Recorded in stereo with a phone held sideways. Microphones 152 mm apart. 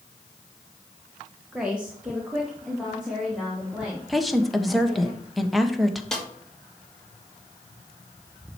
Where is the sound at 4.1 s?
Centre (ahead or behind), 1.2 m.